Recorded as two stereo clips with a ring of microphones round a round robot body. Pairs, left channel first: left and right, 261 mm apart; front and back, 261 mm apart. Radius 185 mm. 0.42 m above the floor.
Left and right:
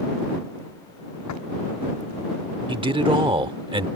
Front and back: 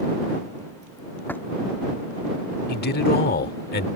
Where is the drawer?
85° left.